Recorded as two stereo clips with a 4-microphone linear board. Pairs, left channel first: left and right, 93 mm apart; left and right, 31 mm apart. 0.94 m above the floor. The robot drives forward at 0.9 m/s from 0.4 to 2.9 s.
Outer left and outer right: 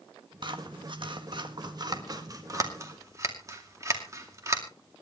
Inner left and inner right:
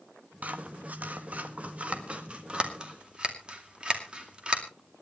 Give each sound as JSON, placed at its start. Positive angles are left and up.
{"t": 0.4, "sound": "scissors", "side_deg": -55, "distance_m": 1.6}